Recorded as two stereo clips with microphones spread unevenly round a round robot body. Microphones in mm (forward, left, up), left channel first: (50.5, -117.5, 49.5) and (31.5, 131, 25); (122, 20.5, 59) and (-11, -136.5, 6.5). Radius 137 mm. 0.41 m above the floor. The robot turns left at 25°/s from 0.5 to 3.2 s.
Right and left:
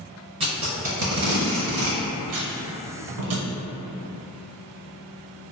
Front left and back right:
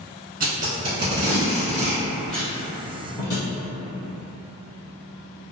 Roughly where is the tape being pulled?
Behind.